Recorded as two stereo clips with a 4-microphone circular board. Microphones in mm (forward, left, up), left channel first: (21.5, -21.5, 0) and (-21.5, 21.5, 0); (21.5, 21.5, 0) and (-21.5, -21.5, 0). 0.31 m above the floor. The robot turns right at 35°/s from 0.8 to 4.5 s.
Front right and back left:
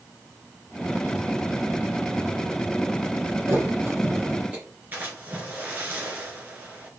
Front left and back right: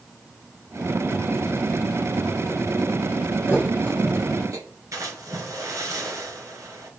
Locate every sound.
3.5 s a thud: 165° left, 3.5 m; by 4.7 s 160° right, 3.5 m
4.9 s a splash: 165° right, 2.5 m